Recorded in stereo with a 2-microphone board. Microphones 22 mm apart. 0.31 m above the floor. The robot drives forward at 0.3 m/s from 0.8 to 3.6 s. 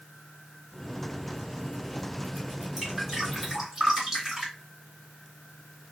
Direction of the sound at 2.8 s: 20° right (ahead or behind).